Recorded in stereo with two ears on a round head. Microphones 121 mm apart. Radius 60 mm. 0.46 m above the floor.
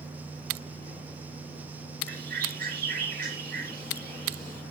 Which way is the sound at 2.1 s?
70° right (ahead or behind).